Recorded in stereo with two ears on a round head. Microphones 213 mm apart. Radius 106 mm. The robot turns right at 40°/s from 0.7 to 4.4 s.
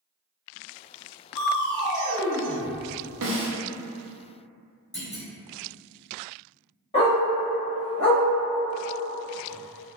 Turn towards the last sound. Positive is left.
turn(degrees=25)  # may be behind; listen again after turning